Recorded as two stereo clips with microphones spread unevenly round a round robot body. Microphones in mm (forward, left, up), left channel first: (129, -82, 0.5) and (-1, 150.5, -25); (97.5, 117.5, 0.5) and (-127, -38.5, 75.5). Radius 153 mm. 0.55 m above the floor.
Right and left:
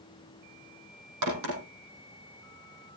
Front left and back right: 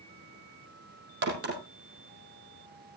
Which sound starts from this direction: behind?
A crack, at 1.2 s.